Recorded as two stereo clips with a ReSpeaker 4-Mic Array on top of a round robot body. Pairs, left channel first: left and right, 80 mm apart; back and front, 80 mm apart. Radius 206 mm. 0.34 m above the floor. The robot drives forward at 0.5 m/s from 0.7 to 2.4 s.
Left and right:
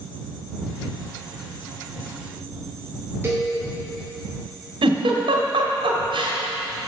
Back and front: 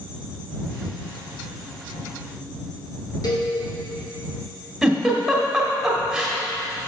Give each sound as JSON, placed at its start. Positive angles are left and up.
{"t": 3.2, "sound": "a cowbell", "azimuth_deg": -150, "distance_m": 3.5}
{"t": 4.8, "sound": "a giggle", "azimuth_deg": -85, "distance_m": 1.4}